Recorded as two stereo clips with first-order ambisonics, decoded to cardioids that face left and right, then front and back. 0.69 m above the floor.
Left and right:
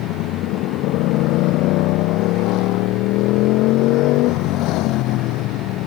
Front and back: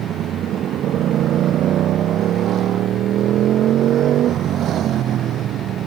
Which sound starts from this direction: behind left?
A motorcycle, at 0.0 s.